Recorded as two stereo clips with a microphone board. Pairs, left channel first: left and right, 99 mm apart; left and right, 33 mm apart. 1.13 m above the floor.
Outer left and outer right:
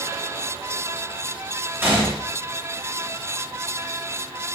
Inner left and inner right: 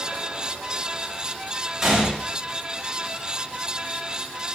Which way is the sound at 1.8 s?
25° right (ahead or behind).